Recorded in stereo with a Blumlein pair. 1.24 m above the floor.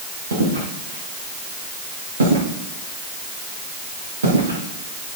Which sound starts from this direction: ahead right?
Footsteps, at 0.3 s.